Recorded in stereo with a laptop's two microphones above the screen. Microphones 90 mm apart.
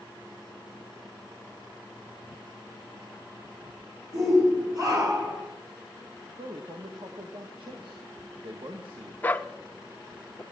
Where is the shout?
40° right (ahead or behind), 3 m; by 5.4 s 45° right (ahead or behind), 3.5 m.